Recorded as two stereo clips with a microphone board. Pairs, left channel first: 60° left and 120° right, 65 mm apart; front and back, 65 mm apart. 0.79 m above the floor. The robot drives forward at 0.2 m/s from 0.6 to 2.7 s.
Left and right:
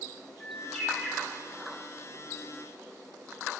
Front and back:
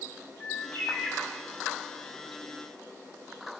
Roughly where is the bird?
Ahead.